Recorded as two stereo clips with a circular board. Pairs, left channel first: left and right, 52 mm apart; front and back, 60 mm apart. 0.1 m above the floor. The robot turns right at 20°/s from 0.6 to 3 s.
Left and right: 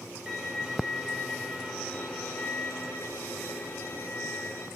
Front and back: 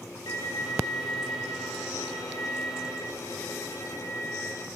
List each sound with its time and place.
0.3 s a violin: 10° right, 2 m; by 4.7 s 40° left, 2 m